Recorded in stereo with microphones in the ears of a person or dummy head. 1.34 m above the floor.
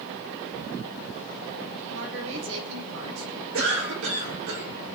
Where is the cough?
75° right (ahead or behind), 6 m.